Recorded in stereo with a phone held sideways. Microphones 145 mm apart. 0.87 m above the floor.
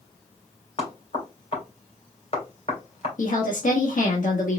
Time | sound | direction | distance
0.8 | knocking | 50° left (ahead or behind) | 2.5 m
3.2 | a woman speaking | 65° left (ahead or behind) | 1.4 m